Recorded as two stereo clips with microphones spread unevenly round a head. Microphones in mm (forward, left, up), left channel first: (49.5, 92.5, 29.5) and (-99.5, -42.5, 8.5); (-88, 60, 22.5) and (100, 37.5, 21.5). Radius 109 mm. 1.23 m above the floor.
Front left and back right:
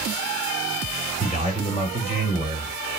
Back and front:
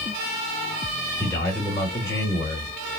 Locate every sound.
1.2 s a man speaking: 100° left, 2.5 m